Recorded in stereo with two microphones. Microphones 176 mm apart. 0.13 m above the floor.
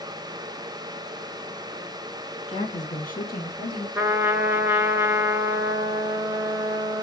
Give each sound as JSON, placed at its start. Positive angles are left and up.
{"t": 2.5, "sound": "a woman speaking", "side_deg": 35, "distance_m": 1.3}
{"t": 4.0, "sound": "a trumpet", "side_deg": -15, "distance_m": 0.5}